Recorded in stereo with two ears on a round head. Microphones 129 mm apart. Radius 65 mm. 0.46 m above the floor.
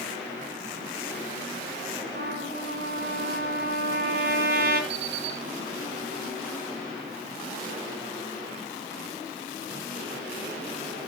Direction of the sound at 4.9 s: 40° right (ahead or behind).